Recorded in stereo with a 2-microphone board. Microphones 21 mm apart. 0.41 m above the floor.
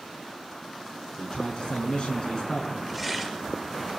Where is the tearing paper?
Centre (ahead or behind), 5.5 m.